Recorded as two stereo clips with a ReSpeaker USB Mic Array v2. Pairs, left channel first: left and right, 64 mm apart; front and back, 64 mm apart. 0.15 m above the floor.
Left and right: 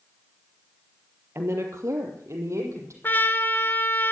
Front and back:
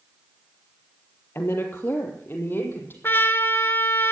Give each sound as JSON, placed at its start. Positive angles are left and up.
{"t": 1.4, "sound": "a woman speaking", "azimuth_deg": -45, "distance_m": 3.0}
{"t": 3.0, "sound": "a trumpet", "azimuth_deg": 40, "distance_m": 1.0}